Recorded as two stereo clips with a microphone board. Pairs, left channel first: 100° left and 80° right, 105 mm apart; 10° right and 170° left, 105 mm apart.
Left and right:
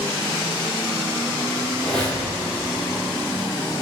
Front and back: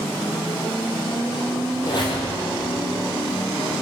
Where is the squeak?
20° left, 1.9 m.